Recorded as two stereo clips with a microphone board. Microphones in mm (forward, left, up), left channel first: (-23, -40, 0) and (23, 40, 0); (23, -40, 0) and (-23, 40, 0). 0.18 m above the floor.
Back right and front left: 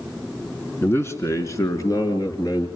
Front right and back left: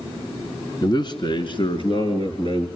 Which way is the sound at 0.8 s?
65° right.